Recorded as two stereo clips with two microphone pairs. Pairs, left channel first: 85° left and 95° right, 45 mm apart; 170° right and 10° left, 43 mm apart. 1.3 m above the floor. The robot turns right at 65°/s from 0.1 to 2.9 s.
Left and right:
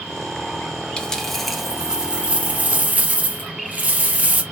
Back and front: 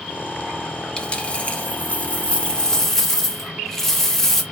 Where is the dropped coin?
140° left, 0.8 m; by 4.4 s 95° right, 0.8 m.